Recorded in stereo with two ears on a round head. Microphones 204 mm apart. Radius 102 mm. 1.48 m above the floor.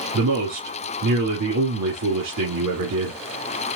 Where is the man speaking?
85° right, 2.5 m.